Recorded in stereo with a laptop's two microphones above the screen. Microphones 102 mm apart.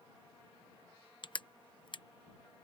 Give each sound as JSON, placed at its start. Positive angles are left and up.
{"t": 1.2, "sound": "crushing", "side_deg": 50}